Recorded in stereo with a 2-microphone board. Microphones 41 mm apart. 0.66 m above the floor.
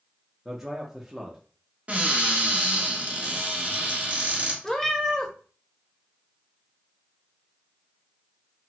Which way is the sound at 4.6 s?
10° left (ahead or behind).